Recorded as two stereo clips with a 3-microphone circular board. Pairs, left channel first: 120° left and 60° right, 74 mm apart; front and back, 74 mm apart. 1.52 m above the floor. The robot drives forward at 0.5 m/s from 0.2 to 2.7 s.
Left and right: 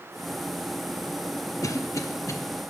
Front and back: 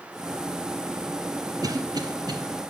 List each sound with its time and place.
1.6 s a cough: 155° left, 0.6 m; by 2.4 s 165° left, 0.9 m